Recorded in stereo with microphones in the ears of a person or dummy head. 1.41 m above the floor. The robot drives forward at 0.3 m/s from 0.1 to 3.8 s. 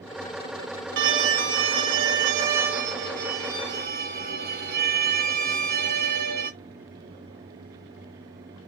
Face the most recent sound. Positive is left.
turn(degrees=-50)  # may be behind; listen again after turning